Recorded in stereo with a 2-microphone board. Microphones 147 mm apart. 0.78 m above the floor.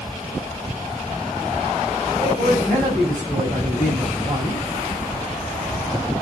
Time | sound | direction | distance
2.2 | a man speaking | 25° right (ahead or behind) | 5 m